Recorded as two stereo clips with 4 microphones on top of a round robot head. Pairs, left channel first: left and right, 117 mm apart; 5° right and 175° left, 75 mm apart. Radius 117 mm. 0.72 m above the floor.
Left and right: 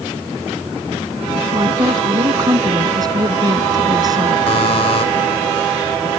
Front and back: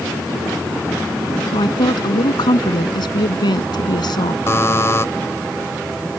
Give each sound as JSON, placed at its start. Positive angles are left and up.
{"t": 1.5, "sound": "a woman speaking", "azimuth_deg": -30}
{"t": 4.5, "sound": "a buzzer", "azimuth_deg": 50}